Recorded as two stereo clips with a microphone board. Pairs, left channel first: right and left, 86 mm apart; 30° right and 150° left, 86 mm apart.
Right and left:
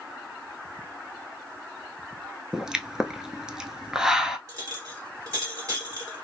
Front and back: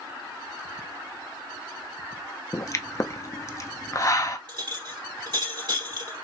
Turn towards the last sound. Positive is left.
turn(degrees=140)